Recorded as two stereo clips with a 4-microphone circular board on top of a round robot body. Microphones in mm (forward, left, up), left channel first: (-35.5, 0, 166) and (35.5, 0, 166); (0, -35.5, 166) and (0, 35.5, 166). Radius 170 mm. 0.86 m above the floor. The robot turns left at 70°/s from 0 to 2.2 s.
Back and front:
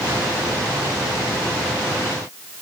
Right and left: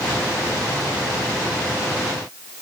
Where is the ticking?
No ticking in this recording.